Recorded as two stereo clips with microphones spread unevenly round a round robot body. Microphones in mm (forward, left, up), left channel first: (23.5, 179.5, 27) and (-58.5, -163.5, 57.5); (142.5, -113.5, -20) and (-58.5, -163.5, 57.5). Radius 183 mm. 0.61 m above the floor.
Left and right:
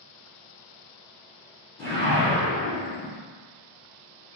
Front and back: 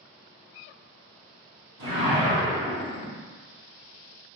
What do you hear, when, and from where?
1.8 s a whoosh: 155° left, 1.3 m